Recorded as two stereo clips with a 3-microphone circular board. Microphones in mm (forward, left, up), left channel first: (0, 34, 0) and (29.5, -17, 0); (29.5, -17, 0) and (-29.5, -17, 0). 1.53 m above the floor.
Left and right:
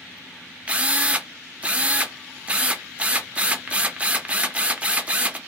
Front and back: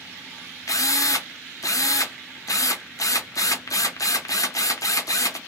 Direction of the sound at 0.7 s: 10° left.